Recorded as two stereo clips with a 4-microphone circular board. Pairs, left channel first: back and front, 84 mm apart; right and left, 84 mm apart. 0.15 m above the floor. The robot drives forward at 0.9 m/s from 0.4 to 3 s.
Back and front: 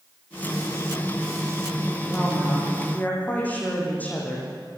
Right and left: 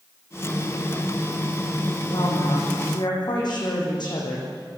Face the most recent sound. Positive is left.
turn(degrees=-110)